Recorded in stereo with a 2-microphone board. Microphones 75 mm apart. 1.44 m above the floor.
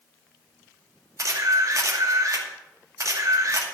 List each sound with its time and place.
1.2 s a camera shutter: 50° right (ahead or behind), 2.5 m